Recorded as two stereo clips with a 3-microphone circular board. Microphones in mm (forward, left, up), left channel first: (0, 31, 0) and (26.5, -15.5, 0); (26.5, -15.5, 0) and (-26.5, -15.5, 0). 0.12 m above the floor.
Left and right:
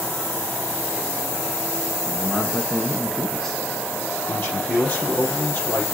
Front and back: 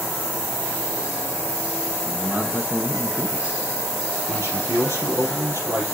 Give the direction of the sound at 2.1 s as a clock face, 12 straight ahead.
6 o'clock.